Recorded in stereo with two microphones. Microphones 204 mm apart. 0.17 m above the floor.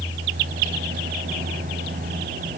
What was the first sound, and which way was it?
Only background noise.